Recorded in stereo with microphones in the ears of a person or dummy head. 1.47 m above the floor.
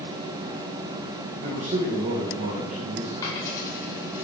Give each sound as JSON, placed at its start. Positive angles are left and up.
{"t": 1.4, "sound": "a man speaking", "side_deg": -40, "distance_m": 1.5}
{"t": 3.2, "sound": "a dropped coin", "side_deg": 15, "distance_m": 2.5}